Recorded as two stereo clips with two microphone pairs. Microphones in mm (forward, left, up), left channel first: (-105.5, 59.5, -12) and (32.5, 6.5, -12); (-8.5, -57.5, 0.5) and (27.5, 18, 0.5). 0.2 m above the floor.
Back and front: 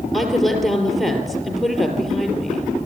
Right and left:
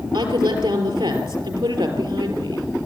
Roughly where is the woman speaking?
Left.